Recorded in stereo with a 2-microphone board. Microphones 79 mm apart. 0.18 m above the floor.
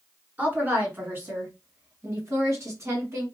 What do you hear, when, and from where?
0.4 s a woman speaking: 20° right (ahead or behind), 2.5 m; by 3.2 s 40° right (ahead or behind), 1.9 m